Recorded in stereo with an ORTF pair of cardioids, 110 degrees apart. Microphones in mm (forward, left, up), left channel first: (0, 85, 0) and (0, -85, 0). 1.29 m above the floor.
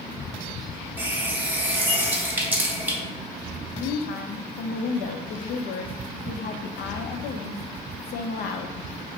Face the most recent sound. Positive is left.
turn(degrees=65)